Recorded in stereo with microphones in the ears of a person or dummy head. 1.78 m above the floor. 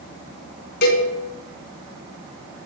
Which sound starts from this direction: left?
A cowbell, at 0.8 s.